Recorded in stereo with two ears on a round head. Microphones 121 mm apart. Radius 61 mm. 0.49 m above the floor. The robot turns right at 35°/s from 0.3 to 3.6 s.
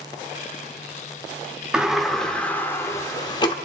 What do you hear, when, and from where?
1.7 s a sliding door: 10° right, 0.7 m; by 3.5 s 55° left, 0.7 m